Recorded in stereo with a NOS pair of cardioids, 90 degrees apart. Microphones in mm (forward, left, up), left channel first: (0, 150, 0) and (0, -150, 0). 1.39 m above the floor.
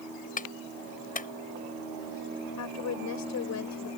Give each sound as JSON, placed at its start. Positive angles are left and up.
{"t": 0.4, "sound": "a clap", "azimuth_deg": 25}
{"t": 2.6, "sound": "a woman speaking", "azimuth_deg": 60}